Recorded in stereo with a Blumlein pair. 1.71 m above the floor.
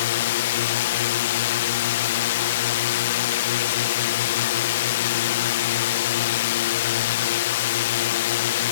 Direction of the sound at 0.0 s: 55° left.